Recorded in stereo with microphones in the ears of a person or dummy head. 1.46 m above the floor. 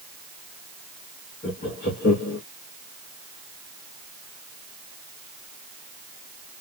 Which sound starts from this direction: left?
Laughter, at 1.4 s.